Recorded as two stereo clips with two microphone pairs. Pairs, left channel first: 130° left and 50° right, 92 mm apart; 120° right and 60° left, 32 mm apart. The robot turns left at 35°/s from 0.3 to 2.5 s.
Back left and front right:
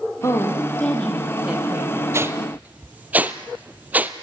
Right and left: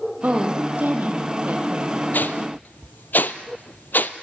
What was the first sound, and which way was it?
A woman speaking, 75° left.